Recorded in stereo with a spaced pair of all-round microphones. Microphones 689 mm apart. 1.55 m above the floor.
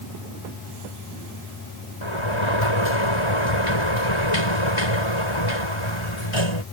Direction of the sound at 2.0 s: 45° left (ahead or behind).